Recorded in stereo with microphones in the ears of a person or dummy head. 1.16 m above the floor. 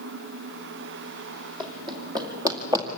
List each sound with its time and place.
1.6 s running footsteps: 25° right (ahead or behind), 3 m; by 2.9 s 15° right (ahead or behind), 2 m